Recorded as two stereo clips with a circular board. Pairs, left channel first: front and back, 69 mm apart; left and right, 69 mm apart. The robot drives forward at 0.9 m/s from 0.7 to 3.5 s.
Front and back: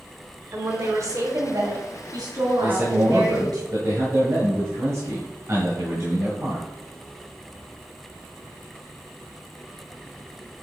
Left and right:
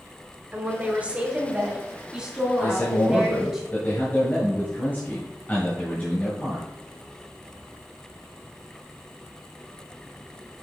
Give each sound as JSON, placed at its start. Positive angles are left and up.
{"t": 0.5, "sound": "a woman speaking", "azimuth_deg": -145, "distance_m": 1.3}
{"t": 2.6, "sound": "a man speaking", "azimuth_deg": 120, "distance_m": 1.3}